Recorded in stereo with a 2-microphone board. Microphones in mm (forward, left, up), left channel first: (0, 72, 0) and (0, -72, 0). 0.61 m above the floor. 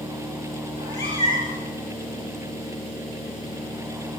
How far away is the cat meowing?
About 7.5 m.